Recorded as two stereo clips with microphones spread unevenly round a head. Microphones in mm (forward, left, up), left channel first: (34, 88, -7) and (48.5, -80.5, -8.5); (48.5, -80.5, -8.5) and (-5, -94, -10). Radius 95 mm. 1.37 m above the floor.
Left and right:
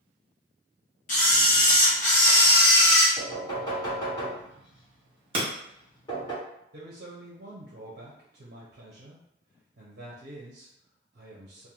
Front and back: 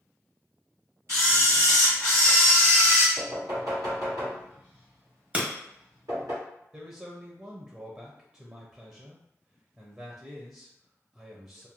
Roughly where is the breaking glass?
Behind right.